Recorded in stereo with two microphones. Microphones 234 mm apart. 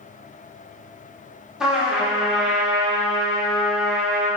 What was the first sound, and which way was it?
A trumpet, 5° right (ahead or behind).